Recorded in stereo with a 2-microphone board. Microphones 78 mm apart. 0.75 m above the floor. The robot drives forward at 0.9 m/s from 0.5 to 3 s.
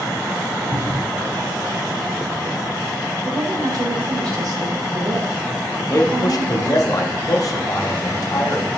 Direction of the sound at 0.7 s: 60° right (ahead or behind).